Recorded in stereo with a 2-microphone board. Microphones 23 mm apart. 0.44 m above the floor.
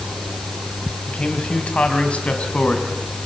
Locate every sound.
1.1 s a man speaking: 60° left (ahead or behind), 3.5 m; by 3.2 s 65° left (ahead or behind), 5 m